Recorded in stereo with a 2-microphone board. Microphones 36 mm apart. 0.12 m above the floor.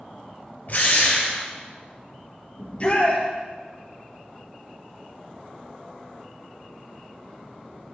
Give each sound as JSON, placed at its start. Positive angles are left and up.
{"t": 0.7, "sound": "a drill", "side_deg": 50, "distance_m": 2.0}
{"t": 2.6, "sound": "a shout", "side_deg": 35, "distance_m": 2.0}